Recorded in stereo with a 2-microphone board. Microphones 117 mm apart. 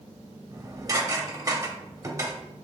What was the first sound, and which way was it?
Dishes clattering, 30° right (ahead or behind).